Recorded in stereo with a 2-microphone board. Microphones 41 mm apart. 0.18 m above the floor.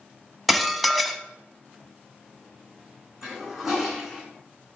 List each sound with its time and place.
0.5 s dishes clattering: centre (ahead or behind), 0.7 m
3.2 s a toilet flushing: 10° right (ahead or behind), 3 m